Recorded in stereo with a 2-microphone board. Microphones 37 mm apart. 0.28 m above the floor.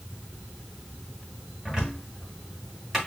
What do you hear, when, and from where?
1.6 s a cupboard door: 15° right (ahead or behind), 2 m